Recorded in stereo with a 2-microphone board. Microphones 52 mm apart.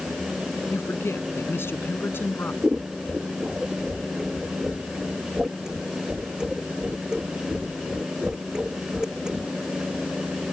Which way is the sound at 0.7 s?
50° left (ahead or behind).